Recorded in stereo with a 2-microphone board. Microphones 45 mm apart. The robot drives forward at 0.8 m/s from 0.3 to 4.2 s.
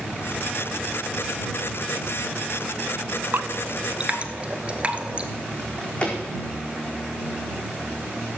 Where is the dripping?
55° right (ahead or behind), 0.6 m; by 5.3 s 30° right (ahead or behind), 1.1 m.